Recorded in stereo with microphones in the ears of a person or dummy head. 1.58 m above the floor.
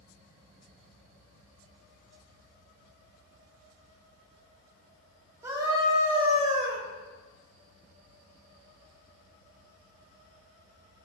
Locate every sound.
5.4 s a scream: 20° right (ahead or behind), 3.5 m; by 6.8 s 40° right (ahead or behind), 2.5 m